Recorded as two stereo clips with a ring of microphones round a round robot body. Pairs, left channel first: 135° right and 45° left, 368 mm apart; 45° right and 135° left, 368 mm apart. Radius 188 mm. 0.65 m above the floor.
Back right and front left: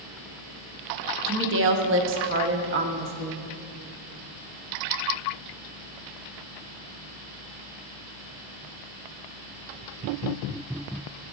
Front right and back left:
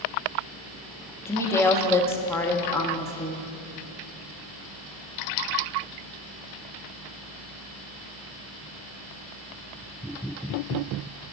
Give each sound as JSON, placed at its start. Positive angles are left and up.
{"t": 1.3, "sound": "a woman speaking", "azimuth_deg": 35, "distance_m": 0.8}